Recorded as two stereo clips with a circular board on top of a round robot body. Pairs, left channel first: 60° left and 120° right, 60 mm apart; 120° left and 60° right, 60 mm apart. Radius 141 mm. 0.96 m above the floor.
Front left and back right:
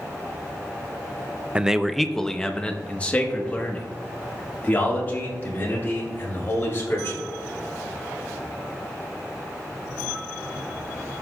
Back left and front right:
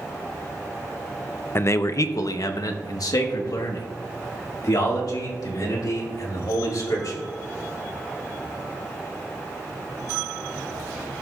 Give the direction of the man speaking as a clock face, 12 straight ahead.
6 o'clock.